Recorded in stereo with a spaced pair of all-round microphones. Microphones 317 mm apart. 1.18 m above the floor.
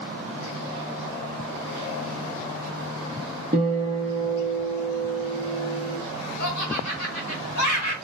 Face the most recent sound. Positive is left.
turn(degrees=55)  # may be behind; listen again after turning